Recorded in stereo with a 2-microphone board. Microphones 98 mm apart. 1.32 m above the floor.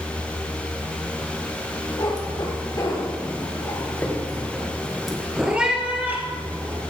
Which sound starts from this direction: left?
A cat meowing, at 2.0 s.